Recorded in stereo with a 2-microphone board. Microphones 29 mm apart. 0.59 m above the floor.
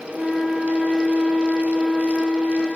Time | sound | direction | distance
0.1 | a flute | 20° left (ahead or behind) | 2.5 m